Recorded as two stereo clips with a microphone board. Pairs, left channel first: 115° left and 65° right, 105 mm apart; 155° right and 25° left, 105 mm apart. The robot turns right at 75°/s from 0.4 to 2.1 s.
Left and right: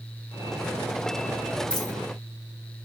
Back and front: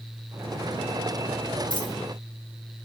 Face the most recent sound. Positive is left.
turn(degrees=-175)